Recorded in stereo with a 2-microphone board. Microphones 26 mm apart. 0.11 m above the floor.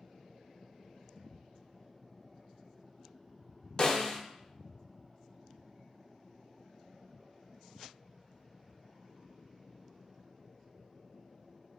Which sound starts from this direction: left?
A snare drum, at 3.8 s.